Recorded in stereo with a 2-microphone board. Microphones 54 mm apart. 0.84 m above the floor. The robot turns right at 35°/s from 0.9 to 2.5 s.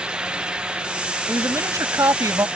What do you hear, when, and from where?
1.3 s a woman speaking: 120° right; by 2.5 s 80° right